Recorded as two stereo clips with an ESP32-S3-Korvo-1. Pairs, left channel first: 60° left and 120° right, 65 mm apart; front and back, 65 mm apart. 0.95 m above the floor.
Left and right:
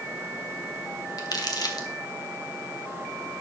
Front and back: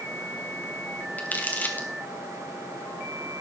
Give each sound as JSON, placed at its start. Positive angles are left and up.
{"t": 1.2, "sound": "crumpling", "azimuth_deg": 65, "distance_m": 2.5}